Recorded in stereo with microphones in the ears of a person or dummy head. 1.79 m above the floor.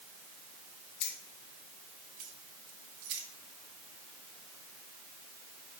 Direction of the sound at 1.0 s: 50° left (ahead or behind).